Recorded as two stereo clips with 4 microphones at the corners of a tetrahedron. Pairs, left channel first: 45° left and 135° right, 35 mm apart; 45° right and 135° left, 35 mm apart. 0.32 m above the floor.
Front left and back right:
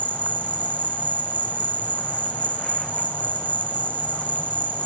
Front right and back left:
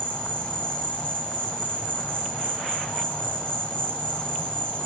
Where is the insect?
Straight ahead, 1.4 m.